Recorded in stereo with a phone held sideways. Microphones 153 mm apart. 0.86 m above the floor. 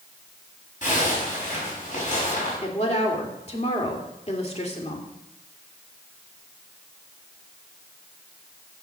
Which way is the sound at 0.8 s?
60° left (ahead or behind).